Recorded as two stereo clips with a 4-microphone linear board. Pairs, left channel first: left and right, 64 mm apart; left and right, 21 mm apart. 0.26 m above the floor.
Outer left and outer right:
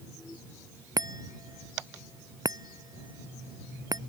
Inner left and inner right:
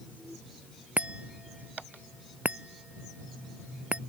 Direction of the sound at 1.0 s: 80° right.